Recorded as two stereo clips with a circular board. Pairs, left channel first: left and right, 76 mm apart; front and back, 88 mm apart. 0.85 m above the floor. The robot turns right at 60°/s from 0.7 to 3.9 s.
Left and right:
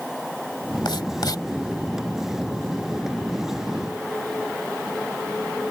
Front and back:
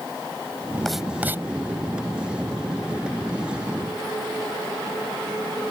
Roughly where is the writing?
Left.